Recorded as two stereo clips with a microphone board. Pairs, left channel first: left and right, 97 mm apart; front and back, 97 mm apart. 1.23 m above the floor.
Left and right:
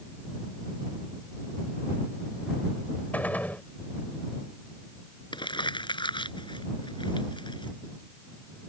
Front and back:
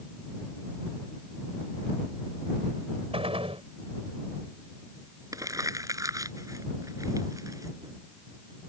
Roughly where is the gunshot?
Behind.